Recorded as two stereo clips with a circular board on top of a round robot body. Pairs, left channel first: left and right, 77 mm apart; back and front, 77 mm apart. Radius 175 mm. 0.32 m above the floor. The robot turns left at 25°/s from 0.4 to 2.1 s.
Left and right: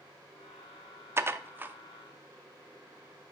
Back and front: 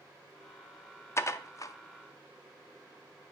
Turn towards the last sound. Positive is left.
turn(degrees=-160)